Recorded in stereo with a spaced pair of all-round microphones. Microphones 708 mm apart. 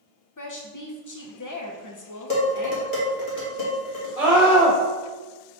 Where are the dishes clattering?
70° left (ahead or behind), 1.4 m.